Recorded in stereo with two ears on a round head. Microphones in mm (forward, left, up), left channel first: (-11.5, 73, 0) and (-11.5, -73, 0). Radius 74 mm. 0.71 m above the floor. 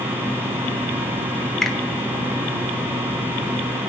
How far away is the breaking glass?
I don't hear breaking glass.